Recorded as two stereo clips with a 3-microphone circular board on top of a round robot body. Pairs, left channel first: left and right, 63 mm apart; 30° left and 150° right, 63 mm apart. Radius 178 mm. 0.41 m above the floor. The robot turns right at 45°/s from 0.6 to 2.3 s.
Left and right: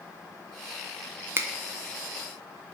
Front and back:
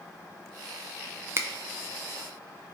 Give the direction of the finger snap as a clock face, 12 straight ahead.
4 o'clock.